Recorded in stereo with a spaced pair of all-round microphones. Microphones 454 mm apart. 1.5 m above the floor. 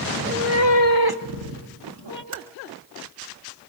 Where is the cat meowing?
15° right (ahead or behind), 0.9 m; by 2.2 s 65° right (ahead or behind), 1.7 m.